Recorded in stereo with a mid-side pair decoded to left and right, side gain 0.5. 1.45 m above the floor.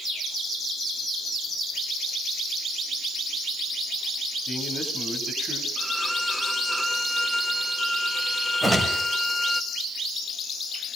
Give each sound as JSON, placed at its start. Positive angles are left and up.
{"t": 4.5, "sound": "a man speaking", "azimuth_deg": -20, "distance_m": 9.0}
{"t": 5.8, "sound": "a violin", "azimuth_deg": 0, "distance_m": 1.6}
{"t": 8.6, "sound": "a whoosh", "azimuth_deg": -15, "distance_m": 5.0}